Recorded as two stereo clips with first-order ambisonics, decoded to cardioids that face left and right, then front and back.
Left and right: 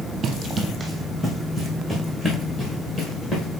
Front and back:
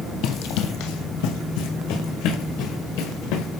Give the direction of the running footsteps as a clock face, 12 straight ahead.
1 o'clock.